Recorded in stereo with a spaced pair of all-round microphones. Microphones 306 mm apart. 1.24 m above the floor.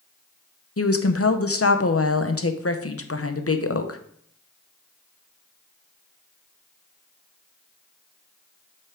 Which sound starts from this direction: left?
A woman speaking, at 0.8 s.